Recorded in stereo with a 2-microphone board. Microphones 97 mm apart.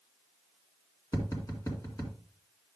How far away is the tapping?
About 2.5 m.